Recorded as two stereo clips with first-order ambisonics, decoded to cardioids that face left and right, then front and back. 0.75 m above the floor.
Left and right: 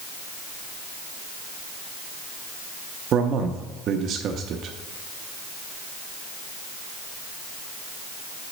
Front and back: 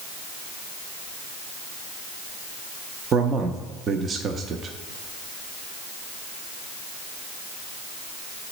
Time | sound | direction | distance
3.1 | a man speaking | 125° right | 0.5 m